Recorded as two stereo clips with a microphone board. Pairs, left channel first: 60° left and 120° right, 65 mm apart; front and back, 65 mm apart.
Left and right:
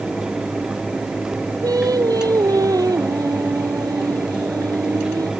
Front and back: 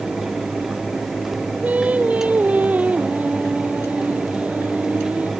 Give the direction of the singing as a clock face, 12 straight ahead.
4 o'clock.